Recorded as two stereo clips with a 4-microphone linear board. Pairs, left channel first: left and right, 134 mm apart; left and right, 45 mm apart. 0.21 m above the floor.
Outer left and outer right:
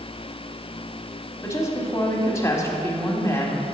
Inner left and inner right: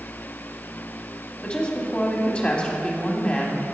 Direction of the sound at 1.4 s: 25° left (ahead or behind).